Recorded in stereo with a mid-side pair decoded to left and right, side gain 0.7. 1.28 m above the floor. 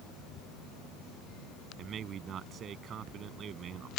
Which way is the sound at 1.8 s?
40° right.